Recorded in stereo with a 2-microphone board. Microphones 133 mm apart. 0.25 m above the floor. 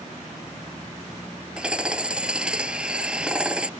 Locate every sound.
1.6 s hammering: 5° right (ahead or behind)